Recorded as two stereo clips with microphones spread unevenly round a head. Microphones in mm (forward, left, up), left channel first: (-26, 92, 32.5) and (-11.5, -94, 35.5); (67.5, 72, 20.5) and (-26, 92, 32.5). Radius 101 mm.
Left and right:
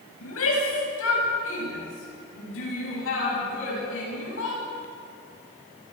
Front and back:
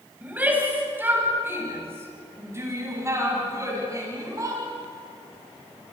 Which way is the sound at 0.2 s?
95° left.